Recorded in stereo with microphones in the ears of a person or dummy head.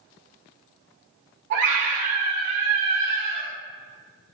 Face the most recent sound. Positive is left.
turn(degrees=-60)  # may be behind; listen again after turning